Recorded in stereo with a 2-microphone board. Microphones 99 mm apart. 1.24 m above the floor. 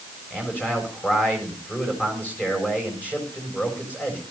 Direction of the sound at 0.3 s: 15° left (ahead or behind).